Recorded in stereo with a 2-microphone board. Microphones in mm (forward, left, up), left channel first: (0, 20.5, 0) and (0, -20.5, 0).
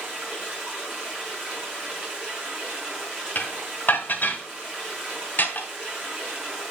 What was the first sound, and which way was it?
Running water, 25° right (ahead or behind).